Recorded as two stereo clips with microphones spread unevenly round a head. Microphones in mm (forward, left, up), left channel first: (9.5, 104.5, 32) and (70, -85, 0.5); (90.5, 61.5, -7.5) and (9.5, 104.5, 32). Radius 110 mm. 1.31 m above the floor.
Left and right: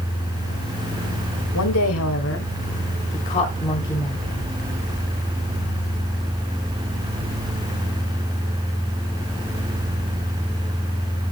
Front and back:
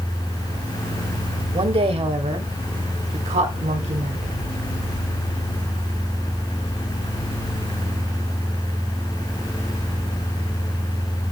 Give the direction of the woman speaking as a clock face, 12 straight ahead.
8 o'clock.